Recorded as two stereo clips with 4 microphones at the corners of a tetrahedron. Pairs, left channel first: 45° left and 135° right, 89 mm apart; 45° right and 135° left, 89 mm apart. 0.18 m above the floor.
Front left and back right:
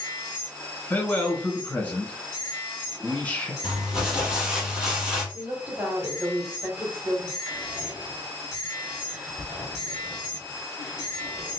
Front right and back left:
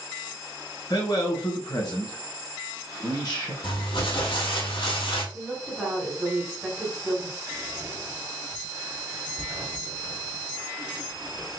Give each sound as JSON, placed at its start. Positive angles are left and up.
{"t": 0.9, "sound": "a man speaking", "azimuth_deg": -25, "distance_m": 1.7}
{"t": 3.6, "sound": "crumpling", "azimuth_deg": -50, "distance_m": 1.7}
{"t": 5.3, "sound": "a woman speaking", "azimuth_deg": -155, "distance_m": 1.6}
{"t": 7.5, "sound": "whispering", "azimuth_deg": 160, "distance_m": 1.2}